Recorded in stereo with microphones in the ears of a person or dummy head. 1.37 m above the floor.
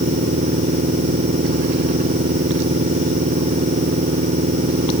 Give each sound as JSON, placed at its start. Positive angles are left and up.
{"t": 0.0, "sound": "a machine running", "side_deg": -35}